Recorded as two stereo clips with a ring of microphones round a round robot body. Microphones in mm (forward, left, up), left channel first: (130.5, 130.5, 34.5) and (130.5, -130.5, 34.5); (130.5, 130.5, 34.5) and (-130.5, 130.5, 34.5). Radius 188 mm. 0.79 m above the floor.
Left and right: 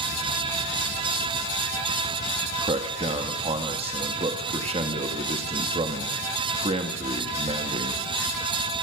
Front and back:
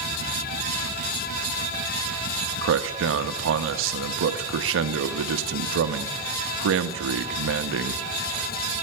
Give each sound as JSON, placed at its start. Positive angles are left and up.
{"t": 2.6, "sound": "a man speaking", "azimuth_deg": -155, "distance_m": 0.8}